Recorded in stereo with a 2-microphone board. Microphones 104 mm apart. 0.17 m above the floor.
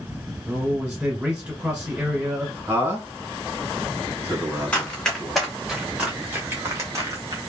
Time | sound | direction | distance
0.5 | a man speaking | 10° right (ahead or behind) | 1.5 m
2.7 | a man speaking | 25° right (ahead or behind) | 1.4 m
4.7 | running footsteps | 15° left (ahead or behind) | 1.6 m